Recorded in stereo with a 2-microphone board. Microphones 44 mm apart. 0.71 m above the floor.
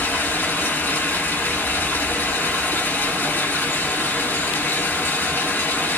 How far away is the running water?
About 1.6 m.